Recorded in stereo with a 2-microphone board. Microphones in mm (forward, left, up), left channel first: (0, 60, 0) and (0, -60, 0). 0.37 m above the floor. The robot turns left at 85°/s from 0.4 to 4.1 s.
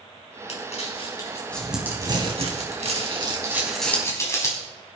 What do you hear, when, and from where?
0.5 s crumpling: 65° left (ahead or behind), 3.5 m; by 4.6 s 25° left (ahead or behind), 3.5 m